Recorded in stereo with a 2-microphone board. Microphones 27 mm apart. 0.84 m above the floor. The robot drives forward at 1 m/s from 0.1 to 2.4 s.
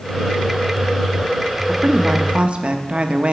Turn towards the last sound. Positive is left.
turn(degrees=-45)  # may be behind; listen again after turning